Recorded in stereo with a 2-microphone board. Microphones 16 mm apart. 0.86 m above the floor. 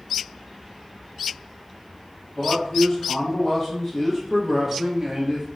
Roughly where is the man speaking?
Left.